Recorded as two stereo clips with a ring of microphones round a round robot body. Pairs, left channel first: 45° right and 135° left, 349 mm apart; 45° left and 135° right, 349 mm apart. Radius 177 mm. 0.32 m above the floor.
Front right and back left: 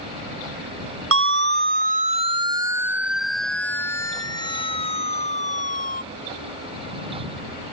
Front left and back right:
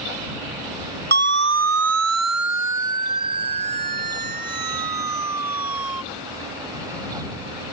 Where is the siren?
175° left; by 6.0 s 110° right.